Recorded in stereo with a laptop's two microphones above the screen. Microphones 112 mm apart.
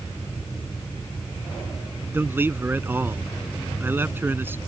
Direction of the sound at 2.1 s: 20° right (ahead or behind).